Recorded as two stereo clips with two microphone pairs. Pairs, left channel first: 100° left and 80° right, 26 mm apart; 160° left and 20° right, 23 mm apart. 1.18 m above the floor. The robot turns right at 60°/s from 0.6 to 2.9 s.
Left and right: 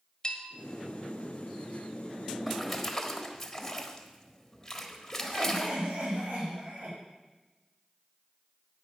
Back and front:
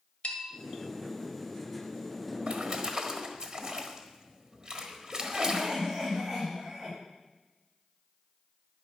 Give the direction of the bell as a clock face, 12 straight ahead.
7 o'clock.